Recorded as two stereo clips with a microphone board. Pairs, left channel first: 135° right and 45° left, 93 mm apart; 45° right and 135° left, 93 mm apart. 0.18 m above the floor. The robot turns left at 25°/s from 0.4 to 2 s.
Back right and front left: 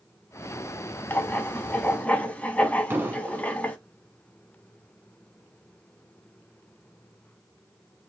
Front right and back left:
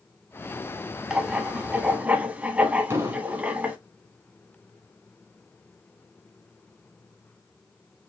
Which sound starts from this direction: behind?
Writing, at 1.1 s.